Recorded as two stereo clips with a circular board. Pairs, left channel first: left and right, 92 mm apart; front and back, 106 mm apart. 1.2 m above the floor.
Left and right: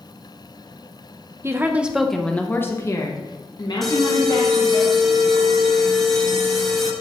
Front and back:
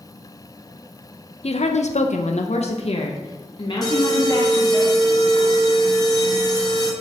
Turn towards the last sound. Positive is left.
turn(degrees=5)